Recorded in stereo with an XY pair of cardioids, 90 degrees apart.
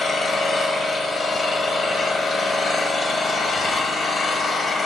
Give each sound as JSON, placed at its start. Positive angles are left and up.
{"t": 0.0, "sound": "an engine running", "azimuth_deg": 70, "distance_m": 1.5}